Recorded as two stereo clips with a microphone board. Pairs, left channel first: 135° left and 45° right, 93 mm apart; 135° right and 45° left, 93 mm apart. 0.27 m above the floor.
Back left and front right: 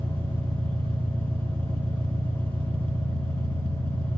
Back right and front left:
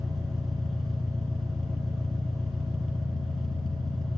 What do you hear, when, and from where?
0.0 s an engine running: 45° right, 3 m